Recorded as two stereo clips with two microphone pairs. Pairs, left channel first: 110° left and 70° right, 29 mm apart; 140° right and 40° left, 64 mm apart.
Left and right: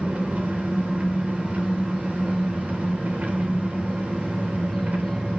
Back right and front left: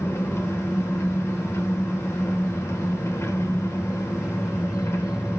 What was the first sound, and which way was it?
An engine running, 95° right.